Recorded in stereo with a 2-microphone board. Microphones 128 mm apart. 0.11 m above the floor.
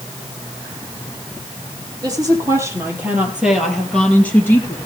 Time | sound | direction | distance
2.0 | a woman speaking | 30° right (ahead or behind) | 3.5 m